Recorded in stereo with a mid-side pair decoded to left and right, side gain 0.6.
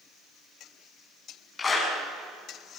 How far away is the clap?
About 8 m.